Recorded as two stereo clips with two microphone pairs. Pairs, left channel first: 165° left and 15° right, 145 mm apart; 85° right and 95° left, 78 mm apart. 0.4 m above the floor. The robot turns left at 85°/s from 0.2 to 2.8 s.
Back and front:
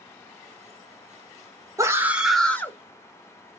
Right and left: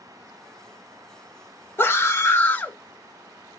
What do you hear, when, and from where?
1.8 s a scream: 60° right, 0.9 m; by 2.8 s 140° right, 0.9 m